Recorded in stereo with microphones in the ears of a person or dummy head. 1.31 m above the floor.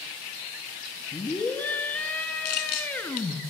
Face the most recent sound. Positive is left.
turn(degrees=45)  # may be behind; listen again after turning